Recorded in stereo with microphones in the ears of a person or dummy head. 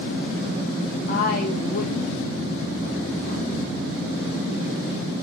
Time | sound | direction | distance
1.1 | a woman speaking | 50° left (ahead or behind) | 0.8 m